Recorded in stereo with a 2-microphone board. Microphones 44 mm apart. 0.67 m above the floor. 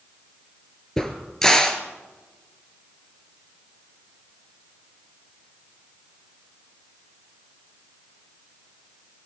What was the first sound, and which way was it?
A crack, 10° left (ahead or behind).